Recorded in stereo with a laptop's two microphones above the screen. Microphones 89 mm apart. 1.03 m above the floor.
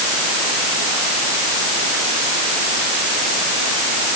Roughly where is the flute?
No flute in this recording.